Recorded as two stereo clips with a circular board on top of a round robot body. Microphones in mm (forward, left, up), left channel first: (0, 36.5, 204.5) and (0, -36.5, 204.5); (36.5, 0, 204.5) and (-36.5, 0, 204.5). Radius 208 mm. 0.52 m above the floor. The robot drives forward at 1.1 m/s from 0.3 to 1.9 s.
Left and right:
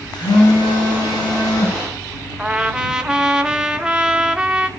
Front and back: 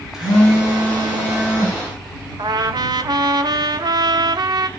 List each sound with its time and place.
0.1 s a phone buzzing: 95° left, 9 m; by 1.8 s 105° left, 9.5 m
2.4 s a trumpet: 165° right, 1.5 m